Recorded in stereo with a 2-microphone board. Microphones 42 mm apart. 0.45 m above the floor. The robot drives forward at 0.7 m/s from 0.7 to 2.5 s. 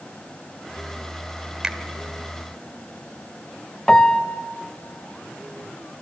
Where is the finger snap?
15° right (ahead or behind), 1.1 m.